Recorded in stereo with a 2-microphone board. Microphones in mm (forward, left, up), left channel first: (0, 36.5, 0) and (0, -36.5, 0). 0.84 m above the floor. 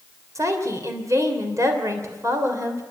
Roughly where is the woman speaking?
Right.